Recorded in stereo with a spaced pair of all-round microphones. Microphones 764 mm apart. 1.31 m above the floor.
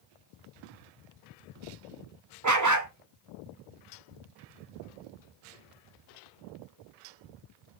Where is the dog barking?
25° right (ahead or behind), 0.7 m.